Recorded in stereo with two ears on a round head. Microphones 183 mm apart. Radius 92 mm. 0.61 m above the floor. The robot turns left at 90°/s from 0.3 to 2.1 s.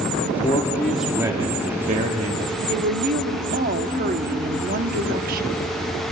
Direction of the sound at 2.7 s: 45° right (ahead or behind).